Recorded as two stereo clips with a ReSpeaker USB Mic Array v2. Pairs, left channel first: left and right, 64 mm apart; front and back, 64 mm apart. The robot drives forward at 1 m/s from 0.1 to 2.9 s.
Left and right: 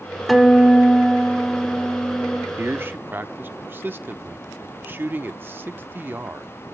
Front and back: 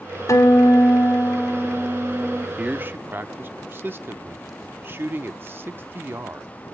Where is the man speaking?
110° right, 0.7 m; by 6.5 s 135° right, 0.9 m.